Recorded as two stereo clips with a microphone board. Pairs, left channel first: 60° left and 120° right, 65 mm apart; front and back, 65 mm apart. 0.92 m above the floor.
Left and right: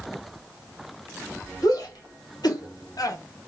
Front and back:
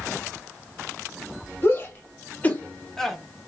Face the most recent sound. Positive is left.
turn(degrees=90)